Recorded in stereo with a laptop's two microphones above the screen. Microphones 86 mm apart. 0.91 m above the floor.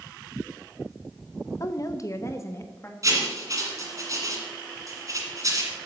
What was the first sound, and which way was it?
A woman speaking, 40° left (ahead or behind).